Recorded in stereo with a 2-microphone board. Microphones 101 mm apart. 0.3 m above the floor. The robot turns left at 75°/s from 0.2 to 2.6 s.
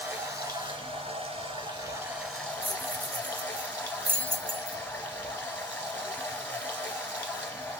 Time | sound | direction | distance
0.0 | running water | 20° right | 1.4 m
2.6 | keys jangling | 25° right (ahead or behind) | 0.7 m